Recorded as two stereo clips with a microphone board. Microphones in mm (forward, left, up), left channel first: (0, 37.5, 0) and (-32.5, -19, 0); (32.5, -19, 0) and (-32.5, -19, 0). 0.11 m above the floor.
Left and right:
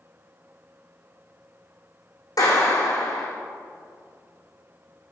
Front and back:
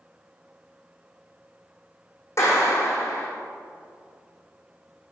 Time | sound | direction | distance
2.4 | a clap | 45° left | 5.5 m